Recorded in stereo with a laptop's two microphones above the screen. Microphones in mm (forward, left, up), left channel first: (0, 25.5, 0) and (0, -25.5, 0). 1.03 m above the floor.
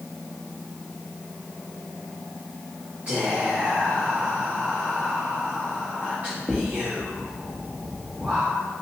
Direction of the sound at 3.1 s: 30° right (ahead or behind).